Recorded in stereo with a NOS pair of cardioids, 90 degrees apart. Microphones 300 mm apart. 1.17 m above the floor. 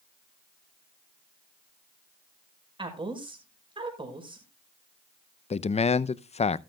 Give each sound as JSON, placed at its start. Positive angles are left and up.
{"t": 2.8, "sound": "a woman speaking", "azimuth_deg": -15, "distance_m": 5.5}
{"t": 5.5, "sound": "a man speaking", "azimuth_deg": 20, "distance_m": 0.6}